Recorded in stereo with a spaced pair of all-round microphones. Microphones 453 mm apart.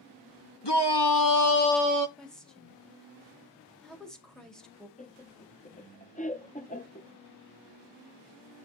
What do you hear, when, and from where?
0.6 s a shout: 65° left (ahead or behind), 1.5 m; by 2.1 s 40° right (ahead or behind), 0.5 m
2.2 s a woman speaking: centre (ahead or behind), 2 m
5.0 s laughter: 15° left (ahead or behind), 0.9 m